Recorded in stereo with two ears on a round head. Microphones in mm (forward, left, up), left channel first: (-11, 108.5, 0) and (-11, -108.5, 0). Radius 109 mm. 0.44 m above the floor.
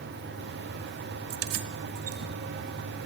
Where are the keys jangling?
60° right (ahead or behind), 1.8 m.